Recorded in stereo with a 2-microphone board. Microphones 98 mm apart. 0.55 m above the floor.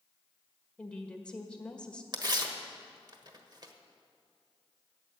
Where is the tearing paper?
45° right (ahead or behind), 1.3 m.